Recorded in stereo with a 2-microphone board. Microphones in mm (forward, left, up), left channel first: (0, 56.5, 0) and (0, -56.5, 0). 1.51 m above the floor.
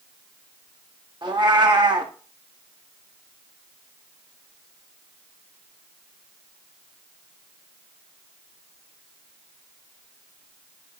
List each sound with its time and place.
1.2 s a cat meowing: 40° right (ahead or behind), 1.0 m